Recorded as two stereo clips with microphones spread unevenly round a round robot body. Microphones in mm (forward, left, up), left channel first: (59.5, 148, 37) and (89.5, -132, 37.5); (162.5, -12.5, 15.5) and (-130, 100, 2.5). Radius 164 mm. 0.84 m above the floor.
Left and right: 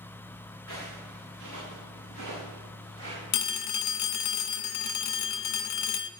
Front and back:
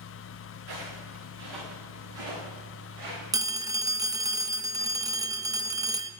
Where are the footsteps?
155° left, 6 m; by 3.2 s 170° left, 8.5 m.